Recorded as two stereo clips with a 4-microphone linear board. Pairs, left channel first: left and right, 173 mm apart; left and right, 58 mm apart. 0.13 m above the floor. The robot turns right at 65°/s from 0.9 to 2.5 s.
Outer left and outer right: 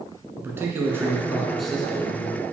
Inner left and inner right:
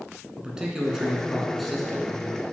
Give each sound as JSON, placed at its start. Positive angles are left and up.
{"t": 0.4, "sound": "a man speaking", "side_deg": -15, "distance_m": 1.2}